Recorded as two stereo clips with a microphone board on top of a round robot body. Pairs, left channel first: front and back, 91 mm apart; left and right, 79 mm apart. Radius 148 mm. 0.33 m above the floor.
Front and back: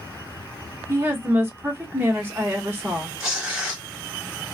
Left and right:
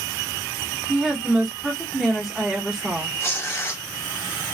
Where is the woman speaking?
170° right, 1.2 m.